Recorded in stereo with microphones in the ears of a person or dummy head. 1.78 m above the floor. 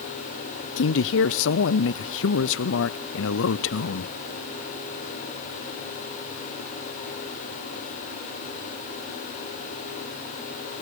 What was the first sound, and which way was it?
A man speaking, 70° left (ahead or behind).